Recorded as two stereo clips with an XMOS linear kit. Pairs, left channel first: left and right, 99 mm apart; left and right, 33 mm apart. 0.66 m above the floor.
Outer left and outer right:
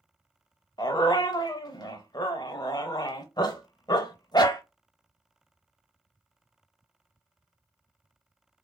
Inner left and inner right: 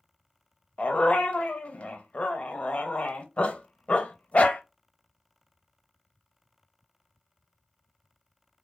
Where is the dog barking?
40° left (ahead or behind), 0.5 m.